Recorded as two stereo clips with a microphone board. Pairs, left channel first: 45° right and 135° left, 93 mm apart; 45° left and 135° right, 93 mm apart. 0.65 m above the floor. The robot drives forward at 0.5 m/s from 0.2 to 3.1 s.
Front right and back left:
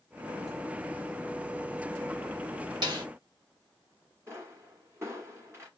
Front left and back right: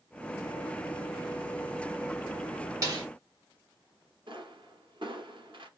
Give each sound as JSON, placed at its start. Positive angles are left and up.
{"t": 2.8, "sound": "a snare drum", "azimuth_deg": 175, "distance_m": 1.5}
{"t": 4.3, "sound": "a pop", "azimuth_deg": -165, "distance_m": 1.8}